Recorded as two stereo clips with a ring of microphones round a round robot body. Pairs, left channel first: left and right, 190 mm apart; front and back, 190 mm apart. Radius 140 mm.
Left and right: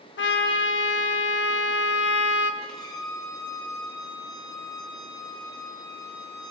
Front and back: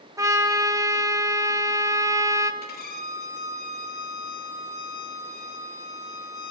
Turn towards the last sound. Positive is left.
turn(degrees=20)